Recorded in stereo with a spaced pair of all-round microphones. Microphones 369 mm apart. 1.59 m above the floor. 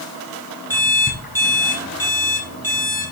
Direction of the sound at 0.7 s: 70° left (ahead or behind).